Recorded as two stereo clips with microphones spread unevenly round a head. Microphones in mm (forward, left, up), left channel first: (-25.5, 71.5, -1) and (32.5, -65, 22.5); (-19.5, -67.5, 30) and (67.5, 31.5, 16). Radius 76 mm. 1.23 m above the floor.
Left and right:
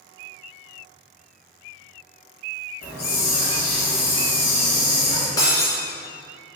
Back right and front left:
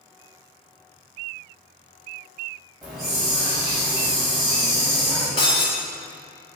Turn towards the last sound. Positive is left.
turn(degrees=-175)